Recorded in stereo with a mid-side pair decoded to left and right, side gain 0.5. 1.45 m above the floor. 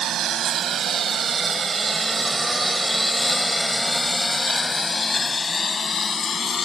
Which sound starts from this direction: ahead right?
A lawn mower, at 0.0 s.